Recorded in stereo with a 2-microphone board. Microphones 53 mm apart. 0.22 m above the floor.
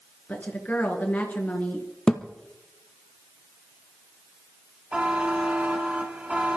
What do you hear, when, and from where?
0.3 s a woman speaking: 35° left (ahead or behind), 3.5 m
2.1 s a thud: 15° left (ahead or behind), 1.5 m
4.9 s a buzzer: 20° right (ahead or behind), 1.9 m